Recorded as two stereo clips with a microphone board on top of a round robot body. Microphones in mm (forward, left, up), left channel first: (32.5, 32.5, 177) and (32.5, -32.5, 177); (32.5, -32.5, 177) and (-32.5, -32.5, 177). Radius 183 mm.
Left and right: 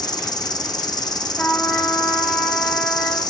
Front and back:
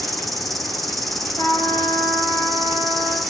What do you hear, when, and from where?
0.0 s an insect: 90° left, 1.3 m
1.4 s a trumpet: 10° left, 7.5 m